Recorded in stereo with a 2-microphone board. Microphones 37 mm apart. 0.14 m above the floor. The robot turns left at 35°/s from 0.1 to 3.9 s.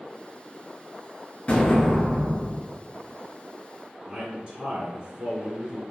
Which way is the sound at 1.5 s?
45° left.